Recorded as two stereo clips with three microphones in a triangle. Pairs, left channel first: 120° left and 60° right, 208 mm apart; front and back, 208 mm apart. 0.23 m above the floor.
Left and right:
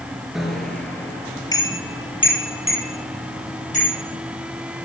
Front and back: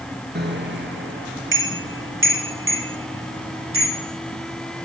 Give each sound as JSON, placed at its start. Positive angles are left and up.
{"t": 0.3, "sound": "a bicycle bell", "azimuth_deg": -150, "distance_m": 2.5}